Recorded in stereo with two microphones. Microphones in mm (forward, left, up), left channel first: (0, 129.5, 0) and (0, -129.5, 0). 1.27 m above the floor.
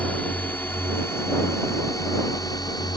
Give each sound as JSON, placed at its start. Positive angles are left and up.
{"t": 0.0, "sound": "a drone", "side_deg": 5}